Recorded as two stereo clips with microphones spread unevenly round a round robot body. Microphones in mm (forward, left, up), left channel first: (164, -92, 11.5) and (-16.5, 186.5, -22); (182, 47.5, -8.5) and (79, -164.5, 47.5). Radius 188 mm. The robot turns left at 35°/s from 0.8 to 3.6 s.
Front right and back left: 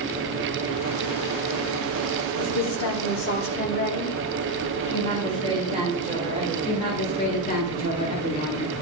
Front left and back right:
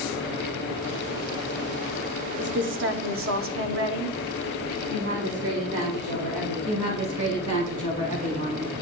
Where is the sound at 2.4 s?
75° right, 1.3 m; by 4.8 s 120° right, 1.3 m.